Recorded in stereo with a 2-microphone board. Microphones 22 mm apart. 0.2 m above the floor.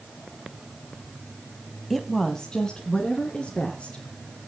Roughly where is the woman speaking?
Centre.